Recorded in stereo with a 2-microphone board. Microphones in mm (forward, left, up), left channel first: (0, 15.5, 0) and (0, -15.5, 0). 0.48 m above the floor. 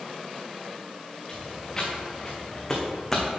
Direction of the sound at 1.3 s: 20° left (ahead or behind).